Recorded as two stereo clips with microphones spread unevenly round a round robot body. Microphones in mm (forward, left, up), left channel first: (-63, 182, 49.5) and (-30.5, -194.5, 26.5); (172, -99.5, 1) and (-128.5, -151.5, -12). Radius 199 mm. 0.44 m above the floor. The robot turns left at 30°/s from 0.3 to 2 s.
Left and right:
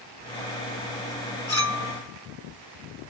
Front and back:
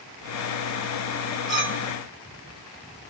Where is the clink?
85° left, 1.9 m; by 3.1 s 70° left, 1.9 m.